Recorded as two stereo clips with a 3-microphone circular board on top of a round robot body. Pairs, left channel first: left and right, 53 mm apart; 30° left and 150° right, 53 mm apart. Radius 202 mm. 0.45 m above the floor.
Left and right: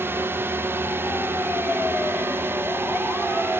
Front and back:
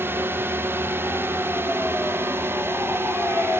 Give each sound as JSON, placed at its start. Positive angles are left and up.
{"t": 0.0, "sound": "a drone", "azimuth_deg": -120}